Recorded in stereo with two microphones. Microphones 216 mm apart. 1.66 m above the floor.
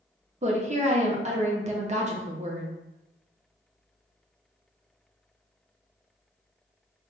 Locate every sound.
0.4 s a woman speaking: 30° right (ahead or behind), 0.6 m